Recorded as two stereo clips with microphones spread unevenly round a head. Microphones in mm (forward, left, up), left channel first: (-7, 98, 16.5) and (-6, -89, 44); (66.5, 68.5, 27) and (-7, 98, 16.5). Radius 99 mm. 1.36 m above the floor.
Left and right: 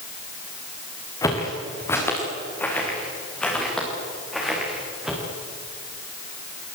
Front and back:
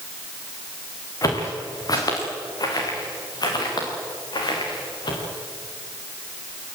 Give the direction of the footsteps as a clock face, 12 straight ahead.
11 o'clock.